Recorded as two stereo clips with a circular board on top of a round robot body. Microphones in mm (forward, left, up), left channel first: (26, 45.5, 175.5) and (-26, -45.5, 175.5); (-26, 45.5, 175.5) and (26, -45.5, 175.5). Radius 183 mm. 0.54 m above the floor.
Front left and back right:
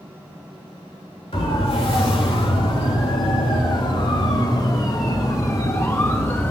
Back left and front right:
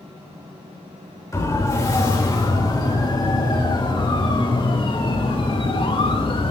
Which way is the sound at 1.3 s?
65° left.